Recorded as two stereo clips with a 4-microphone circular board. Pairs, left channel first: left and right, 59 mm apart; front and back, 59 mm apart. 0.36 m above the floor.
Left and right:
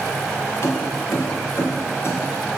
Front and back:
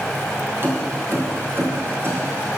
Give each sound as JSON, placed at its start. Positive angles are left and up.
{"t": 0.6, "sound": "keys jangling", "azimuth_deg": 130, "distance_m": 4.0}